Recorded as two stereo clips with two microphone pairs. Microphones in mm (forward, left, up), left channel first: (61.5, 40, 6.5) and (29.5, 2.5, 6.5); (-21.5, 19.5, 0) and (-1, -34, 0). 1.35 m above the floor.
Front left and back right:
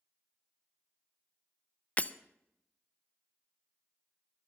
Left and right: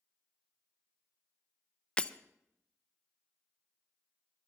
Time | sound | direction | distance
2.0 | breaking glass | 50° left | 0.5 m